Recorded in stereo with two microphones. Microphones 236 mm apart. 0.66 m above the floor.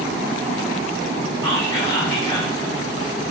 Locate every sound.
1.4 s whispering: 15° left (ahead or behind), 1.3 m